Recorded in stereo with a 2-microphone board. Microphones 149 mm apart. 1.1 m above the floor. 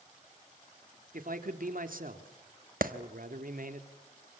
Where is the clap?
75° right (ahead or behind), 1.3 m.